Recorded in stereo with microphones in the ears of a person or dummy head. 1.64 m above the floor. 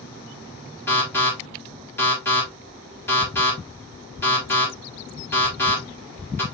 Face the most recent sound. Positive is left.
turn(degrees=15)  # may be behind; listen again after turning